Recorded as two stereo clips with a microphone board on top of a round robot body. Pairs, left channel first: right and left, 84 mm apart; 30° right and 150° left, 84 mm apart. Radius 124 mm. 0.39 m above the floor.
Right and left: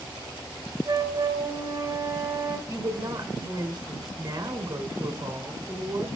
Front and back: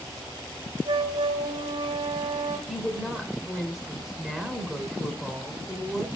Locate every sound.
0.8 s a flute: 145° left, 1.1 m
2.7 s a woman speaking: 55° left, 1.6 m